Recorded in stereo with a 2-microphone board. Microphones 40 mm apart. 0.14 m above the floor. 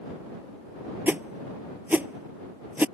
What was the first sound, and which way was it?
A whoosh, 45° right (ahead or behind).